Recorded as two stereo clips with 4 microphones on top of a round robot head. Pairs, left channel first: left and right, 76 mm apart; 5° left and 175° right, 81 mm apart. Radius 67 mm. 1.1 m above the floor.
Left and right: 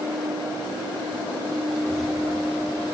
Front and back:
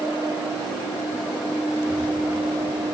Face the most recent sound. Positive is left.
turn(degrees=10)